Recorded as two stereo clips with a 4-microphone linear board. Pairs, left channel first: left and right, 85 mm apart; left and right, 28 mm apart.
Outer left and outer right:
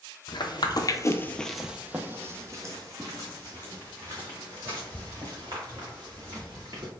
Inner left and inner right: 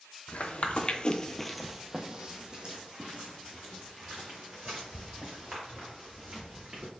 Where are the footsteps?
60° left (ahead or behind), 0.8 m; by 6.9 s 50° right (ahead or behind), 4 m.